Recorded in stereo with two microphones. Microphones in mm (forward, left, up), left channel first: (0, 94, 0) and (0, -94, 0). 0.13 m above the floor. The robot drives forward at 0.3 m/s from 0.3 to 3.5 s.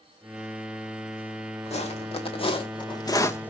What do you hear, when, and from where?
1.7 s footsteps: 35° left (ahead or behind), 2.5 m; by 3.5 s 10° left (ahead or behind), 0.9 m